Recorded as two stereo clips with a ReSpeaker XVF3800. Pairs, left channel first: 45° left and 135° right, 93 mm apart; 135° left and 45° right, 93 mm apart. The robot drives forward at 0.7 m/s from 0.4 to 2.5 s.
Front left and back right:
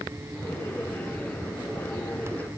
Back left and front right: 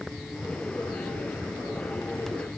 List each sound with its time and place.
Only background noise.